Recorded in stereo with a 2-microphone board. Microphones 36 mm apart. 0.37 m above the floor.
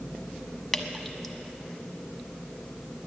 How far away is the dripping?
About 0.8 m.